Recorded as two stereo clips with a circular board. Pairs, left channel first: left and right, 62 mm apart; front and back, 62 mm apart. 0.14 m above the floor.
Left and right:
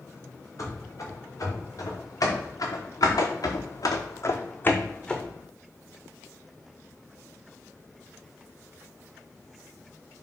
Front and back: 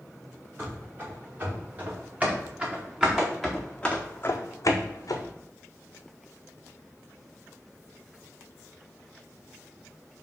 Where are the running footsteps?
125° left, 2 m; by 5.3 s 5° left, 0.8 m.